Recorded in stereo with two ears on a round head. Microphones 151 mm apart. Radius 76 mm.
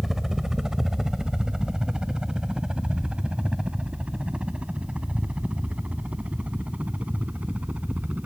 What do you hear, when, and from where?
0.0 s a helicopter: centre (ahead or behind); by 8.3 s 10° right (ahead or behind)